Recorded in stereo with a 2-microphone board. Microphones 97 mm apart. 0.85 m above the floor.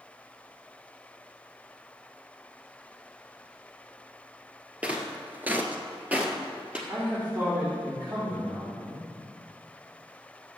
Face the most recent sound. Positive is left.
turn(degrees=-25)  # may be behind; listen again after turning